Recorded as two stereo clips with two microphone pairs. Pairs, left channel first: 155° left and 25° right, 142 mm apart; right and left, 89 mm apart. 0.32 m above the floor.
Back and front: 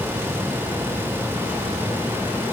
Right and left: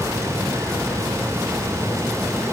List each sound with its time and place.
Only background noise.